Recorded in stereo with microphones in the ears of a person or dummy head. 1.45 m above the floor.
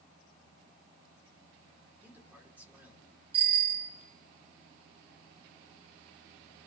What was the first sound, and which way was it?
A man speaking, 10° right (ahead or behind).